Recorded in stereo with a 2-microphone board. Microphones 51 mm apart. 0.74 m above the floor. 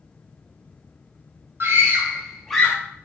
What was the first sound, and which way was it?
A scream, 50° right (ahead or behind).